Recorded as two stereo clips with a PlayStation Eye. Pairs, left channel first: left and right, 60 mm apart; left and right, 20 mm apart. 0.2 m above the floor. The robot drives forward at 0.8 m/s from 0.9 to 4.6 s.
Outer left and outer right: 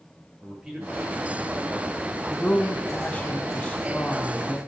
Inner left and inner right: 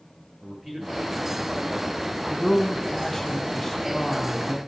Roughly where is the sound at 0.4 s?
Centre.